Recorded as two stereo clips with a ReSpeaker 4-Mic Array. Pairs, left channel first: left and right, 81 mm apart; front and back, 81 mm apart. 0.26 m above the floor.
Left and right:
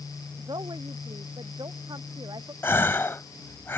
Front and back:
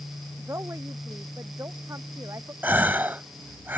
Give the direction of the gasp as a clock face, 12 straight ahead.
8 o'clock.